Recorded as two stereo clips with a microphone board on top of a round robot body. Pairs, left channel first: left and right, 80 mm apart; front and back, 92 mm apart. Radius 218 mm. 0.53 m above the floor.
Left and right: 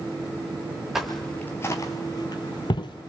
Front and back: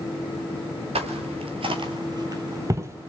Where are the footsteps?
175° right, 0.9 m; by 3.1 s 115° left, 1.4 m.